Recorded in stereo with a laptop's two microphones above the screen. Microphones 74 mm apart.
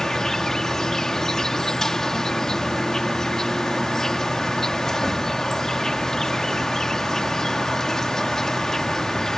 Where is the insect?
5° left (ahead or behind).